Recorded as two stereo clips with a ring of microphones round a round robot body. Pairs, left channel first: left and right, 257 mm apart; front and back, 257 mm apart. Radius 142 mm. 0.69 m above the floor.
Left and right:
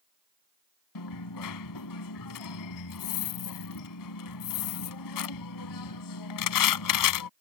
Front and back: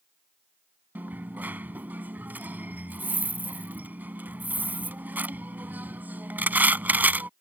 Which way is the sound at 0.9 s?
95° left.